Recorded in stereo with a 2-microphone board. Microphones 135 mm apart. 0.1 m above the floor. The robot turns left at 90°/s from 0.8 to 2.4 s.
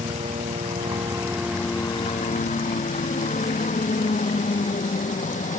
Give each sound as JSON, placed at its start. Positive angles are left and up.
{"t": 0.0, "sound": "a helicopter", "azimuth_deg": -115}